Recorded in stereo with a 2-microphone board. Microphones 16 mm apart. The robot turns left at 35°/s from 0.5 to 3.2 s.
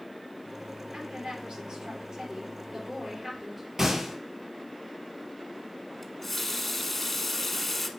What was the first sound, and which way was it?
A woman speaking, 90° right.